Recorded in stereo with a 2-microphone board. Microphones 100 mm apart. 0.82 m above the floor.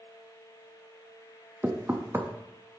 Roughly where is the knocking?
Right.